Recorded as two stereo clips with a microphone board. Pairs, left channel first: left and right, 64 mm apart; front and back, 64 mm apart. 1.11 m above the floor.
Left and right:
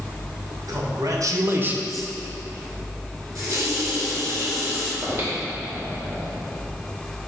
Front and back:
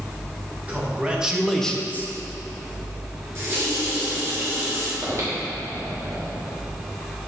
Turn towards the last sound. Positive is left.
turn(degrees=-135)